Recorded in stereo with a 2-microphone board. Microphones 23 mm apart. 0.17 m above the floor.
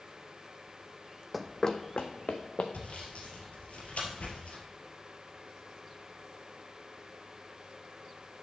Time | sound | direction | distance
1.3 | running footsteps | 5° right (ahead or behind) | 0.6 m
2.7 | sawing | 70° left (ahead or behind) | 2.5 m